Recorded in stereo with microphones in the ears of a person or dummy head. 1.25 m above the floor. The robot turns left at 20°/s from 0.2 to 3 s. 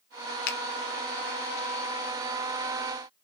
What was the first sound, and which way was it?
A finger snap, 55° left (ahead or behind).